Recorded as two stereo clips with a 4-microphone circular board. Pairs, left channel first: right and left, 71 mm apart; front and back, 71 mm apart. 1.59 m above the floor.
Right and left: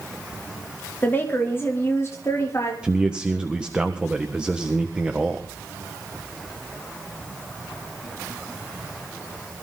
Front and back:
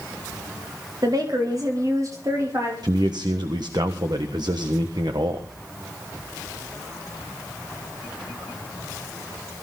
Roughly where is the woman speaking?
Behind right.